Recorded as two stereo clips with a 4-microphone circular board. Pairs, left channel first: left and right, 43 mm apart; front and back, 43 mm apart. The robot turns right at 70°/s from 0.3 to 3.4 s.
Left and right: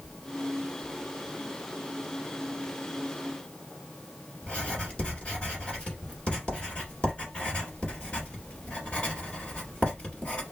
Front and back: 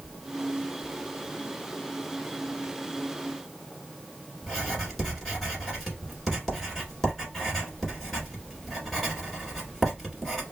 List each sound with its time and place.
4.4 s writing: 75° left, 1.6 m